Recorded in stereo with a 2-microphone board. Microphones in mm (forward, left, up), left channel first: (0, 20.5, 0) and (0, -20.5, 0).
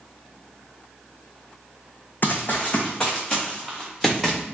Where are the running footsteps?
50° left (ahead or behind), 0.8 m; by 4.4 s centre (ahead or behind), 1.9 m.